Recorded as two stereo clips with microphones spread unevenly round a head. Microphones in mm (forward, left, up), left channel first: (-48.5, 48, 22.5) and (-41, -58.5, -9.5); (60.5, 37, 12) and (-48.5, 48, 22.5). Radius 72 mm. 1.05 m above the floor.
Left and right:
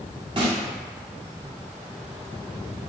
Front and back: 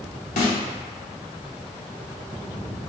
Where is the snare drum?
25° right, 0.6 m.